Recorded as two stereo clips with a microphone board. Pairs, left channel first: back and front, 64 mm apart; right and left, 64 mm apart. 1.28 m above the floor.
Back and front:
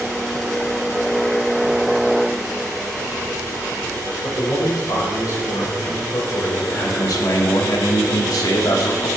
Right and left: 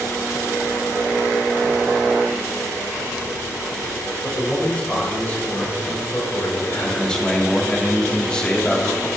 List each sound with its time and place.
4.2 s a man speaking: 165° right, 4.5 m; by 7.1 s 130° right, 5 m
6.8 s a man speaking: 165° right, 2.5 m